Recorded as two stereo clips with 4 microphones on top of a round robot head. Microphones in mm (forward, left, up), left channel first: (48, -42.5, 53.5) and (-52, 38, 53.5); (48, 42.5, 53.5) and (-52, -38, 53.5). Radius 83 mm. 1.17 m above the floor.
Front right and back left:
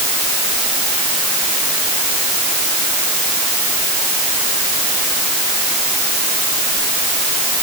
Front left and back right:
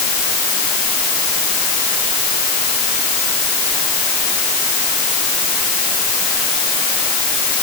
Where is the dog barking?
No dog barking in this recording.